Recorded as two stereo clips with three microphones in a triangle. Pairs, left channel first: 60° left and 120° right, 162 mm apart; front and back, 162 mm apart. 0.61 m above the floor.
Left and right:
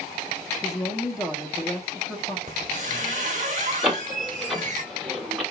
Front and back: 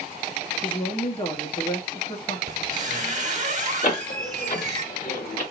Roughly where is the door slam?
Ahead right.